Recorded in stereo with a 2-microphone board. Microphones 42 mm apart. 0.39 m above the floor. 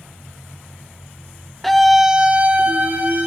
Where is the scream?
5° left (ahead or behind), 0.9 m; by 3.3 s 40° right (ahead or behind), 1.5 m.